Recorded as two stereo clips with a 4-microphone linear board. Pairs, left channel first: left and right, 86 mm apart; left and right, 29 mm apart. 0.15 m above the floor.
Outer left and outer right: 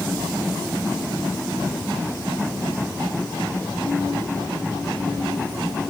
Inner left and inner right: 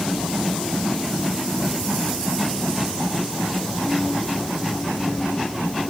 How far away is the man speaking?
No man speaking in this recording.